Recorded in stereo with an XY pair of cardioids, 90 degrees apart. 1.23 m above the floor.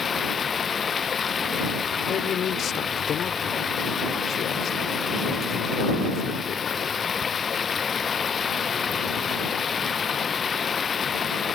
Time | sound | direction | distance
0.0 | running water | 45° left | ?
2.1 | a man speaking | 70° left | ?